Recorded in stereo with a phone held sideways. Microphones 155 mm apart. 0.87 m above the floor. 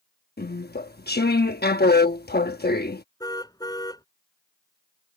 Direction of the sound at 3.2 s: 25° left (ahead or behind).